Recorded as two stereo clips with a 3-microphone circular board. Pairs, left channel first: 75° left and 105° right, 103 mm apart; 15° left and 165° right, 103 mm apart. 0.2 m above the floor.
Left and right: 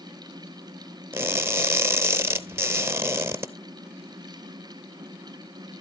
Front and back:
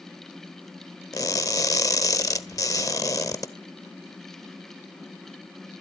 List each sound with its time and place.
1.1 s crushing: 40° right, 0.8 m